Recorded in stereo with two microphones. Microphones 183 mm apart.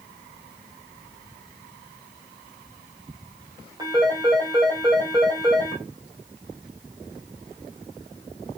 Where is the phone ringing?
20° right (ahead or behind), 4 m.